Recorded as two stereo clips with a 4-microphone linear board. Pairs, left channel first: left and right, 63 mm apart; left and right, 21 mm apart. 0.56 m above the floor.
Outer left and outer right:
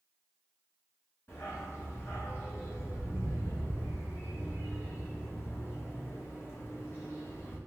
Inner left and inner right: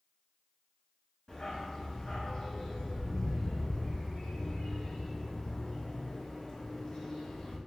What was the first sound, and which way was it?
A dog barking, 40° left (ahead or behind).